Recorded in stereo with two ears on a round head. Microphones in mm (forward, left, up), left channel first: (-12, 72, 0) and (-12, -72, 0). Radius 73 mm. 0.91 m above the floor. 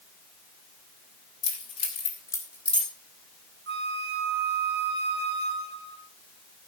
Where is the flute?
70° right (ahead or behind), 1.5 m.